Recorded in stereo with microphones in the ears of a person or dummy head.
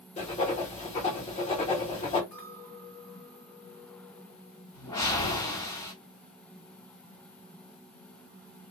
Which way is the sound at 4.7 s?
30° left (ahead or behind).